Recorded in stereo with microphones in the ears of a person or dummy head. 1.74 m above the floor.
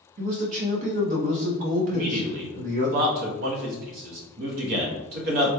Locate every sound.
0.2 s a man speaking: 40° right (ahead or behind), 0.7 m
1.9 s a man speaking: 55° right (ahead or behind), 0.8 m